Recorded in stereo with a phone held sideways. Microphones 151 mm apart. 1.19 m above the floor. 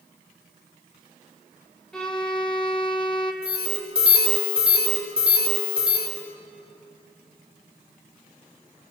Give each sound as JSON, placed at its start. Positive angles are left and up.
{"t": 1.9, "sound": "a violin", "side_deg": 5, "distance_m": 1.6}
{"t": 3.4, "sound": "an alarm", "side_deg": -40, "distance_m": 3.5}